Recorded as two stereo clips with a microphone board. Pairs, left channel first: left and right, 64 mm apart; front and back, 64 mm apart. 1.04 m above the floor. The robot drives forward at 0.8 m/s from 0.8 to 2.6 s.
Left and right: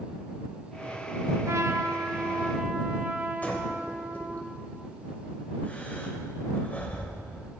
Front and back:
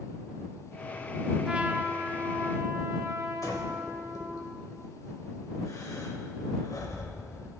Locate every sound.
1.4 s a trumpet: 105° right, 0.8 m; by 4.4 s 150° right, 1.3 m
3.4 s breathing: 25° left, 2 m